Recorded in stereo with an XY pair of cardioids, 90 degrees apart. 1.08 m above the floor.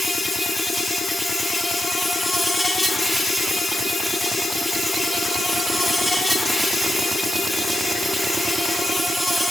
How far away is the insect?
About 0.8 m.